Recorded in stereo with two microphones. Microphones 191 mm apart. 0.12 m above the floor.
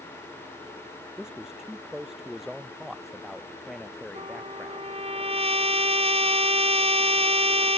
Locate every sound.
1.2 s a man speaking: 5° right (ahead or behind); by 4.9 s centre (ahead or behind)
4.2 s a trumpet: 30° right (ahead or behind)